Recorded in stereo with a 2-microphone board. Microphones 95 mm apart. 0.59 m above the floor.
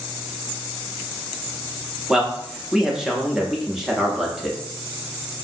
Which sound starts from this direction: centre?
A man speaking, at 2.1 s.